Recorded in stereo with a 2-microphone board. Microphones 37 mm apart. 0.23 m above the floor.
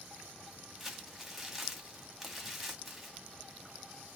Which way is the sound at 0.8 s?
Centre (ahead or behind).